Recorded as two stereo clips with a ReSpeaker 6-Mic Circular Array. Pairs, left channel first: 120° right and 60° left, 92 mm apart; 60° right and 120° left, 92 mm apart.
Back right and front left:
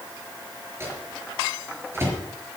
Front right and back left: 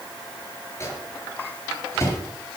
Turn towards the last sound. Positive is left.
turn(degrees=0)